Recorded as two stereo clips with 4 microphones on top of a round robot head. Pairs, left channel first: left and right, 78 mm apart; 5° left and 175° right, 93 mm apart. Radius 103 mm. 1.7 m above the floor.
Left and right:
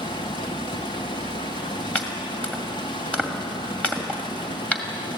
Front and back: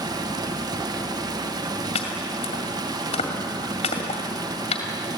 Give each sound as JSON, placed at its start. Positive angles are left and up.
{"t": 0.0, "sound": "running water", "azimuth_deg": 135, "distance_m": 1.1}
{"t": 1.9, "sound": "chopping", "azimuth_deg": 15, "distance_m": 2.0}